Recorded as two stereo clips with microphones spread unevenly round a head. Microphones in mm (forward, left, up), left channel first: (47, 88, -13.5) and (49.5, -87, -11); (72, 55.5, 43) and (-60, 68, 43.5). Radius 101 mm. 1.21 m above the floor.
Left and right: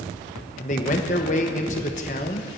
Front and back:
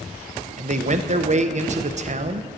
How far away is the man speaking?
About 1.0 m.